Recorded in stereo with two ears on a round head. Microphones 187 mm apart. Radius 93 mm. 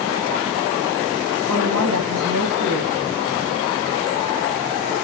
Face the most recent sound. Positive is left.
turn(degrees=-80)